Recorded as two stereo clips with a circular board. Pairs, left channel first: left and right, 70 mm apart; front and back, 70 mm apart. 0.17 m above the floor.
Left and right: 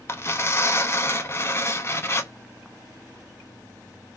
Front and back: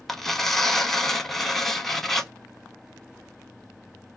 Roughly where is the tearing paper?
Left.